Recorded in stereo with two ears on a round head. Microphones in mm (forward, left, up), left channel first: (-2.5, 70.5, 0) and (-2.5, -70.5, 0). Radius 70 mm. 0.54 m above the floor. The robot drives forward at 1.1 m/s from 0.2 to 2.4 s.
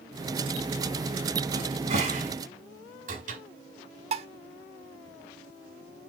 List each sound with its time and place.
1.5 s a cupboard door: 40° right (ahead or behind), 2.5 m; by 3.4 s 55° right (ahead or behind), 2 m
4.1 s dishes clattering: 40° right (ahead or behind), 0.9 m